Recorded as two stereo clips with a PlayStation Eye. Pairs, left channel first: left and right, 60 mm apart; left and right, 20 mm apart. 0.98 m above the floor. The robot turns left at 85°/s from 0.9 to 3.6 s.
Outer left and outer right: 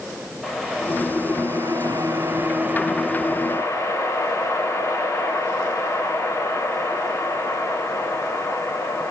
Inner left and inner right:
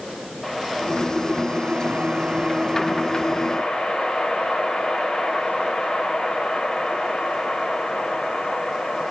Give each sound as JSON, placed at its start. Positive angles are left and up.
{"t": 0.4, "sound": "a whoosh", "azimuth_deg": -5, "distance_m": 1.6}